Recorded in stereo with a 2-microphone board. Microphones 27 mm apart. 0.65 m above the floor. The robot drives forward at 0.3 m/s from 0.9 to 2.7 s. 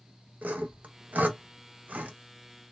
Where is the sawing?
80° right, 0.5 m; by 2.1 s 65° right (ahead or behind), 0.6 m.